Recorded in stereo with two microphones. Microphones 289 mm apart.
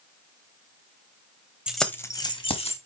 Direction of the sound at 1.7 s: 5° right (ahead or behind).